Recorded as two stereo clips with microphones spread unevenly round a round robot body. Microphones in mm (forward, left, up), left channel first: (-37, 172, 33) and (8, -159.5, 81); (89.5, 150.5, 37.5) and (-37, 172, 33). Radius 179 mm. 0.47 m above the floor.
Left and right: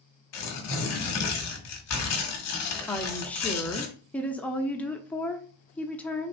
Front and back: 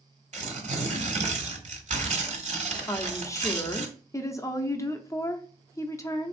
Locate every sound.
0.3 s tearing paper: 145° left, 1.4 m
2.9 s a woman speaking: 35° left, 0.8 m